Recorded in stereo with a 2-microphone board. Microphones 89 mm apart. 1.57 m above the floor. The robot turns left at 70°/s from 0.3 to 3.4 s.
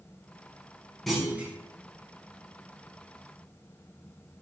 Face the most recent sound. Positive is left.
turn(degrees=-160)